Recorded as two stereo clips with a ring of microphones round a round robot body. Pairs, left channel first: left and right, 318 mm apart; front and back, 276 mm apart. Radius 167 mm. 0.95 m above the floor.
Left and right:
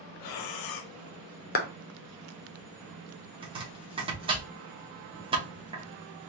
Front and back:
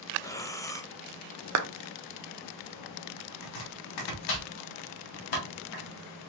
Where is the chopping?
15° right, 1.3 m.